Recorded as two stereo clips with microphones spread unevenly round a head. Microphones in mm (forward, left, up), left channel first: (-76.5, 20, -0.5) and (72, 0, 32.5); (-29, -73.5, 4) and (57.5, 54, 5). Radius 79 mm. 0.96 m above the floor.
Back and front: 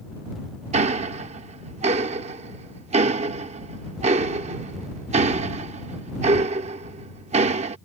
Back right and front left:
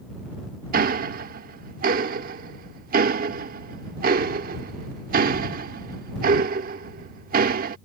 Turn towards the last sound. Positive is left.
turn(degrees=30)